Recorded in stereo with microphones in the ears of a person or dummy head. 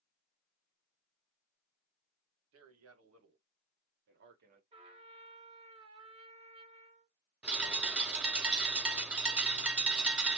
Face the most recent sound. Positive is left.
turn(degrees=-5)  # may be behind; listen again after turning